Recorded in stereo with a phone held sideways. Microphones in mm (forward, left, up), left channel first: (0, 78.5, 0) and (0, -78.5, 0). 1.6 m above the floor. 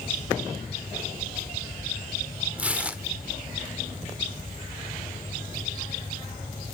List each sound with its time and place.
2.6 s tearing paper: 10° right (ahead or behind), 1.3 m